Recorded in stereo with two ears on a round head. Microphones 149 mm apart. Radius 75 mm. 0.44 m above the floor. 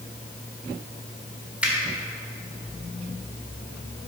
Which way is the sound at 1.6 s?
5° right (ahead or behind).